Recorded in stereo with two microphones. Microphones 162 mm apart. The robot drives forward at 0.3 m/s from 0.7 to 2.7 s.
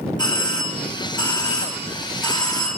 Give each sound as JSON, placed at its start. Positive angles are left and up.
{"t": 0.2, "sound": "a doorbell", "side_deg": 30, "distance_m": 1.7}